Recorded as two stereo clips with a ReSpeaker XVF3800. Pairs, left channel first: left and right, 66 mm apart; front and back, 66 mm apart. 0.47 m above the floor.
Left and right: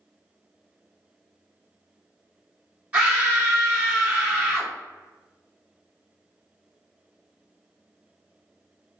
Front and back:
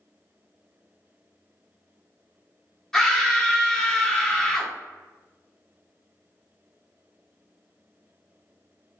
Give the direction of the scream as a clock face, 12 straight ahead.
2 o'clock.